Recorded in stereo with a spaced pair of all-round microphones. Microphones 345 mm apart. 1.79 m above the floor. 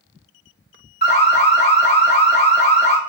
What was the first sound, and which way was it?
An alarm, 30° left (ahead or behind).